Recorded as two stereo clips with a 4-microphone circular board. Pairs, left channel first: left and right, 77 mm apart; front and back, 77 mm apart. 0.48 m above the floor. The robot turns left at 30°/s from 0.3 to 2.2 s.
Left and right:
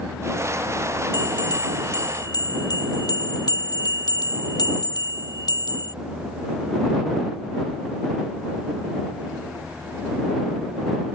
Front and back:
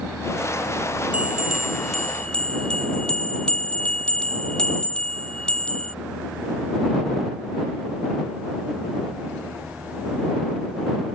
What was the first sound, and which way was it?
A bell, 110° left.